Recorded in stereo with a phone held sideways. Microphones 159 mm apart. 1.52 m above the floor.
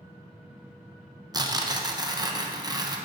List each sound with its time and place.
1.3 s tearing paper: 25° right (ahead or behind), 0.6 m